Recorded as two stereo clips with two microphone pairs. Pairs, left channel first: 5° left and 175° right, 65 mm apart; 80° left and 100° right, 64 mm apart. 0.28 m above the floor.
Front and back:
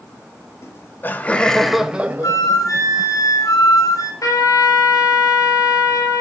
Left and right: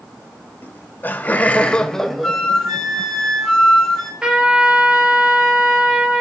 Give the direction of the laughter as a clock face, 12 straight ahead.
11 o'clock.